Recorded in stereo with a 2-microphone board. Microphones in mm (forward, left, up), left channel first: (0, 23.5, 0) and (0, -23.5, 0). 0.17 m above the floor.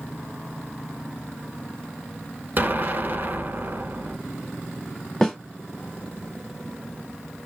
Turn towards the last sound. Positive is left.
turn(degrees=10)  # may be behind; listen again after turning